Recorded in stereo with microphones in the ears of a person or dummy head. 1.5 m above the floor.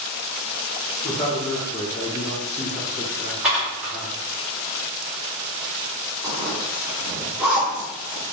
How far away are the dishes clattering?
About 0.8 m.